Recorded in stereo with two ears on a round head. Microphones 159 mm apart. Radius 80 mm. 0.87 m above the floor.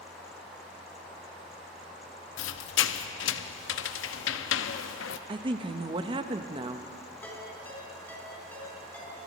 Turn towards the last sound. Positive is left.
turn(degrees=10)  # may be behind; listen again after turning